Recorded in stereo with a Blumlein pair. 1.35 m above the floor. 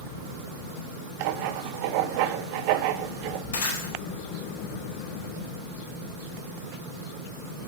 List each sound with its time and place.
1.2 s writing: 45° right, 0.9 m
3.5 s breaking glass: 65° left, 4 m